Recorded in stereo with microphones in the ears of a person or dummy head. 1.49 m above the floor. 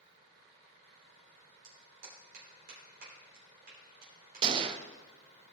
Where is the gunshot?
30° right (ahead or behind), 0.6 m.